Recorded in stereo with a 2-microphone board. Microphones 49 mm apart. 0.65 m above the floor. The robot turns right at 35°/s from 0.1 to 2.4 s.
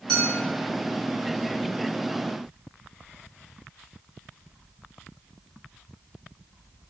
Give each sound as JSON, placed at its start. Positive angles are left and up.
{"t": 0.1, "sound": "a clink", "side_deg": 10, "distance_m": 1.2}